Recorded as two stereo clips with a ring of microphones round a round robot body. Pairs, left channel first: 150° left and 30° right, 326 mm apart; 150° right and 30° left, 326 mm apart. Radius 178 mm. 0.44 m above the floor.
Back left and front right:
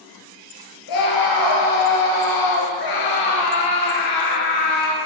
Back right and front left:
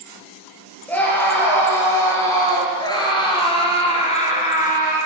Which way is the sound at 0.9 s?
125° left.